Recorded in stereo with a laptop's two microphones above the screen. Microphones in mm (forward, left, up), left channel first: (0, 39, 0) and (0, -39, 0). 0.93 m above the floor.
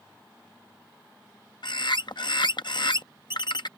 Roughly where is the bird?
Left.